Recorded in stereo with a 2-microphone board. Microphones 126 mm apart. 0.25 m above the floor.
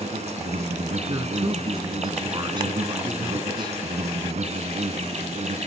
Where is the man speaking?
35° right (ahead or behind), 2 m.